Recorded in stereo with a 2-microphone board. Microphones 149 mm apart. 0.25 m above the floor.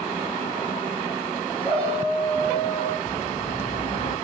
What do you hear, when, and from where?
1.6 s a shout: 40° left (ahead or behind), 3.5 m; by 3.0 s 45° left (ahead or behind), 5 m
3.1 s a bird: 45° left (ahead or behind), 8 m